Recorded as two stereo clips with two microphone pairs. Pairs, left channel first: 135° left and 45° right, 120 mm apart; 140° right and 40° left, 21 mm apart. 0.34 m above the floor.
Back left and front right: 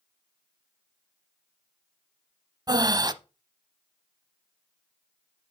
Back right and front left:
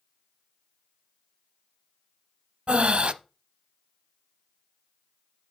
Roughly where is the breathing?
Ahead.